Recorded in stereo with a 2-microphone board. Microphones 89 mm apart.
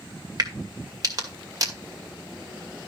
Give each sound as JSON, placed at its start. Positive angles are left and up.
{"t": 0.4, "sound": "a crack", "side_deg": -45, "distance_m": 2.0}